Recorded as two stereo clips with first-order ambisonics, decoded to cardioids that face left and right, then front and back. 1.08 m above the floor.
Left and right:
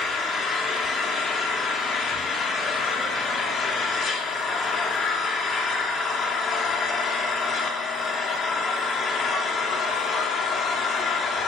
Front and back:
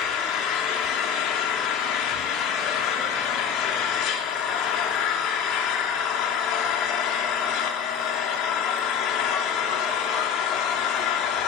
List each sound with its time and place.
0.0 s an engine running: 30° left, 2.5 m